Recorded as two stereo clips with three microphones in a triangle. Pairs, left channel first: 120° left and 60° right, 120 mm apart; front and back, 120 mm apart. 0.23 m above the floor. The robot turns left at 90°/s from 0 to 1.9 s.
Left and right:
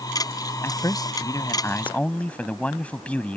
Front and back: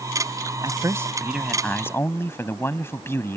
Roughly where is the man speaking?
Behind.